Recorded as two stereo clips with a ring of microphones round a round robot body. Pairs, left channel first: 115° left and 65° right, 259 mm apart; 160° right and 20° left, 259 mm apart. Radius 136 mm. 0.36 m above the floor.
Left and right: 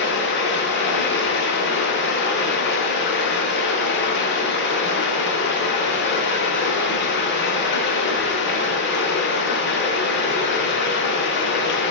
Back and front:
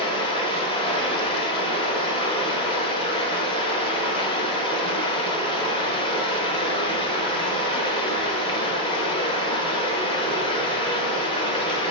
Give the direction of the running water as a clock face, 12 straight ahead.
7 o'clock.